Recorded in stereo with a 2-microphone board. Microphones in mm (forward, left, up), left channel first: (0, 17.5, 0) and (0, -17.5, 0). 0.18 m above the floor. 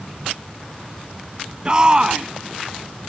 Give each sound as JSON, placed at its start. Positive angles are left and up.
{"t": 1.6, "sound": "a shout", "side_deg": -25}